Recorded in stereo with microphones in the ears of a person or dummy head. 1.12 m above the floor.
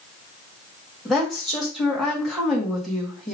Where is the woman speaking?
5° right (ahead or behind), 1.5 m.